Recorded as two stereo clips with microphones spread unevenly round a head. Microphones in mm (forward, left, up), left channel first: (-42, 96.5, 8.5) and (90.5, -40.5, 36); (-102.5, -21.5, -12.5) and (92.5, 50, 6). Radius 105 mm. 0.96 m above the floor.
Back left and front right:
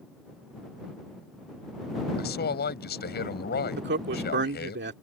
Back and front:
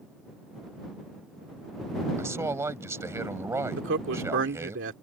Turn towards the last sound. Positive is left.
turn(degrees=-15)